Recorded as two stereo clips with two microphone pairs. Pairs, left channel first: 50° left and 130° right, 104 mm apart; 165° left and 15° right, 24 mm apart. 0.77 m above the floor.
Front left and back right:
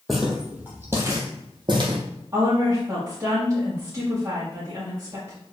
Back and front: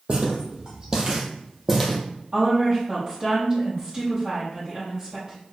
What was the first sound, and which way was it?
Footsteps, 40° right.